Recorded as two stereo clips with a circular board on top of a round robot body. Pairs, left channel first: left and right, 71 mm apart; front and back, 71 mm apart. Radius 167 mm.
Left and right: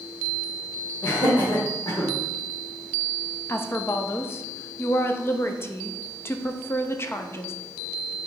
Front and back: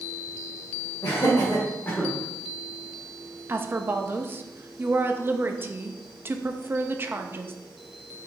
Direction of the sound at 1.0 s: 45° left.